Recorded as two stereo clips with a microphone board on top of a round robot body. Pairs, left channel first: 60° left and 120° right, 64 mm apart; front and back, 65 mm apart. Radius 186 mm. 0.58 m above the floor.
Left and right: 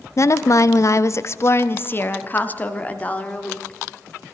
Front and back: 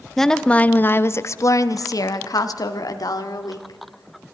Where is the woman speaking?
85° left, 0.9 m; by 4.3 s 15° right, 2.5 m.